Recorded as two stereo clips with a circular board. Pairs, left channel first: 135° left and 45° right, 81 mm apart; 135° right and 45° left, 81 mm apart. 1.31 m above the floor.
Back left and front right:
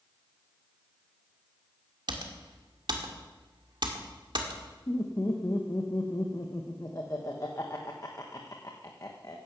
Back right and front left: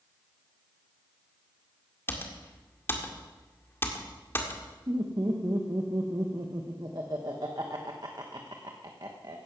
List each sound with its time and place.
2.1 s typing on a keyboard: 70° right, 1.9 m
4.9 s laughter: 85° left, 1.2 m